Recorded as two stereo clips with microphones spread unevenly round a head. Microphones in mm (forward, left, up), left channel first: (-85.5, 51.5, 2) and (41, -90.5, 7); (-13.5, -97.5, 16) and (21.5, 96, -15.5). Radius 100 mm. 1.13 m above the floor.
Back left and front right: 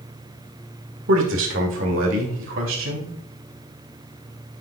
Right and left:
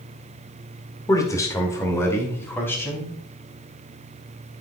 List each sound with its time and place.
1.1 s a man speaking: 25° right, 1.7 m; by 3.1 s 15° right, 2.5 m